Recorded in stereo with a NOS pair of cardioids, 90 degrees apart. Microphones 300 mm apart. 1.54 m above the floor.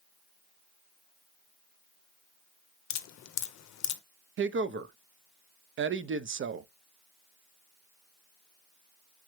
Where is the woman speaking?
45° right, 0.5 m.